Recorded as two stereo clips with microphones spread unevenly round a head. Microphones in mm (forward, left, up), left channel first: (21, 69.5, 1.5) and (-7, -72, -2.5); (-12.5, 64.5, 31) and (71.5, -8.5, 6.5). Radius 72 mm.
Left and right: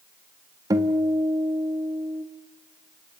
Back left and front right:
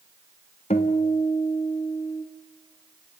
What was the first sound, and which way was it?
A guitar, 170° right.